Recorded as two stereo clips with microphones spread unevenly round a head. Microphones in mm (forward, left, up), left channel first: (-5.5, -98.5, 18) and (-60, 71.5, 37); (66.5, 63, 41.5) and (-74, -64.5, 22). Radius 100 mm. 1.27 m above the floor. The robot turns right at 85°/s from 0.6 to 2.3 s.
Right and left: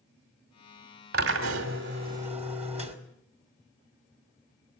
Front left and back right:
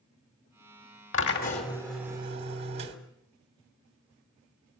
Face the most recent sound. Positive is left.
turn(degrees=160)